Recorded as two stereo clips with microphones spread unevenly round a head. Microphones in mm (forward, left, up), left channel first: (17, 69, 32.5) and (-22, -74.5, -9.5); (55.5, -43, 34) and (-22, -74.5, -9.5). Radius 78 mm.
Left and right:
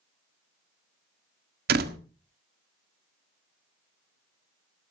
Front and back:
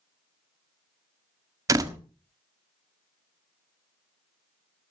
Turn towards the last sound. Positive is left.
turn(degrees=-115)